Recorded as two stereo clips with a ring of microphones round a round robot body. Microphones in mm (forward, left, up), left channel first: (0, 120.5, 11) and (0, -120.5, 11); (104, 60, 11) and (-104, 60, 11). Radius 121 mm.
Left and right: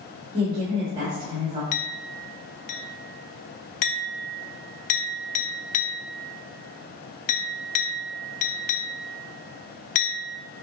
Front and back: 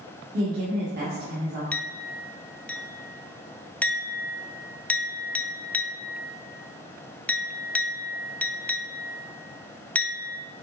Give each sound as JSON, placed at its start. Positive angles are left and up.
{"t": 0.3, "sound": "a woman speaking", "azimuth_deg": -155, "distance_m": 1.5}
{"t": 1.7, "sound": "a clink", "azimuth_deg": 85, "distance_m": 0.8}